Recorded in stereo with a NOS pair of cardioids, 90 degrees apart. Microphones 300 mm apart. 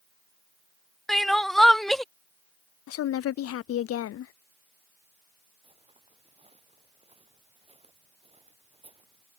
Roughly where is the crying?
Ahead.